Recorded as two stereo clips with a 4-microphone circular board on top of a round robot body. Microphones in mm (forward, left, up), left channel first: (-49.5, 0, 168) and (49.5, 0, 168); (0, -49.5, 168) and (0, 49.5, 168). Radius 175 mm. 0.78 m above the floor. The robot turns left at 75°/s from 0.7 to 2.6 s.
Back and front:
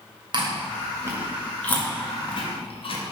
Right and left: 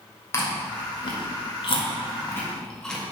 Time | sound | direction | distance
0.3 | chewing | 30° right | 2.0 m